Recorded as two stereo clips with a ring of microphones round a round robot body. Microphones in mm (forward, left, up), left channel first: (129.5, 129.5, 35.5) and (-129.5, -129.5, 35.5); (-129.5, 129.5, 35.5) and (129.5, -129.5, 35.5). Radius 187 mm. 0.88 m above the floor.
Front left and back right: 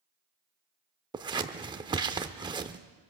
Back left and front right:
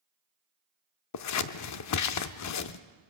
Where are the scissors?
150° left, 0.6 m.